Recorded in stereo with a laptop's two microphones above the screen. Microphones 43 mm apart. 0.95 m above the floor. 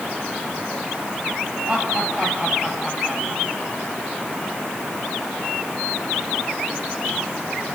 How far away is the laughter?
About 6.5 m.